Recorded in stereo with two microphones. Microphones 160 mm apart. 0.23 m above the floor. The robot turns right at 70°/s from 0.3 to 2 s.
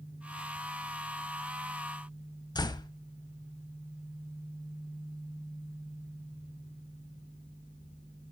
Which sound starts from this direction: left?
A door slam, at 2.5 s.